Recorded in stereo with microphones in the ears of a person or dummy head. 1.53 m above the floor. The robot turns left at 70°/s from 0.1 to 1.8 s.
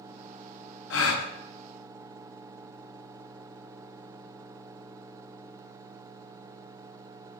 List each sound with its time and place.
0.9 s a gasp: 65° left (ahead or behind), 0.5 m; by 1.3 s 75° left (ahead or behind), 0.5 m